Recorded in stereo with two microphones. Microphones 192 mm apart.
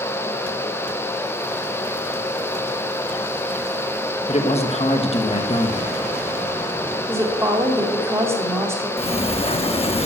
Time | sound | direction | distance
4.3 | a man speaking | 35° left (ahead or behind) | 1.3 m
7.1 | a woman speaking | 15° right (ahead or behind) | 2.5 m
9.0 | a sliding door | 30° left (ahead or behind) | 0.8 m